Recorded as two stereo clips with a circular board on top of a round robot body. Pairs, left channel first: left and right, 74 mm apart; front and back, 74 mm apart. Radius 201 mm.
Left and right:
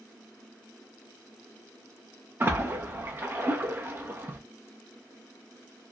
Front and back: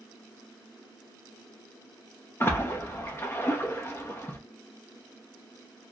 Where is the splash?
40° right, 1.0 m.